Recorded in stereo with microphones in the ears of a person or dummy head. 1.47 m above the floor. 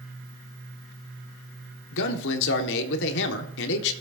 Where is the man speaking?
65° left (ahead or behind), 1.4 m.